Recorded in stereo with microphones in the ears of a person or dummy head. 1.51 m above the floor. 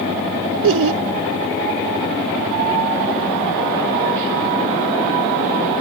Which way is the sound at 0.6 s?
80° right.